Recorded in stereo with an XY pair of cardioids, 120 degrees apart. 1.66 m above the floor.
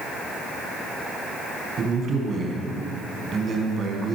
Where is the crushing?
I don't hear crushing.